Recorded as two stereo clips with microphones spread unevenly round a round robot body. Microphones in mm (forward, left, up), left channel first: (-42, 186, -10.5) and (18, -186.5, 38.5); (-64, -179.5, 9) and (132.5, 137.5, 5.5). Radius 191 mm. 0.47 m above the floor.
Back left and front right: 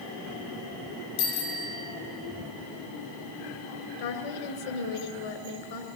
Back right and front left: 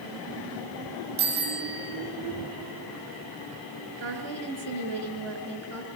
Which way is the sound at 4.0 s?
120° left.